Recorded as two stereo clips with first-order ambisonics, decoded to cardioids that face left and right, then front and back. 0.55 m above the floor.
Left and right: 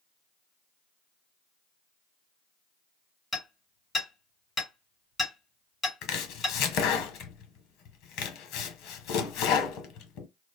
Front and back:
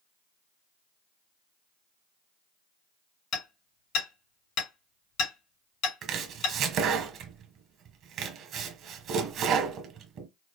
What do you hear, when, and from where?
3.3 s hammering: 20° left, 2.5 m
6.0 s chopping: 125° left, 0.9 m